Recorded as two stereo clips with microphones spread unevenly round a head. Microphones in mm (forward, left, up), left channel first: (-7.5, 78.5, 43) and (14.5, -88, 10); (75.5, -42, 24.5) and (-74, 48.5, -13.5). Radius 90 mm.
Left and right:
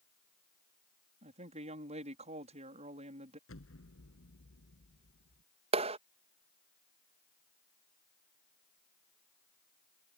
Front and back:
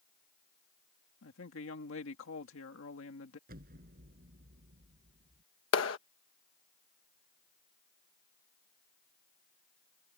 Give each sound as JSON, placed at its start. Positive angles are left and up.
{"t": 1.2, "sound": "a woman speaking", "azimuth_deg": -25}
{"t": 3.5, "sound": "an explosion", "azimuth_deg": 105}
{"t": 5.7, "sound": "a clap", "azimuth_deg": -25}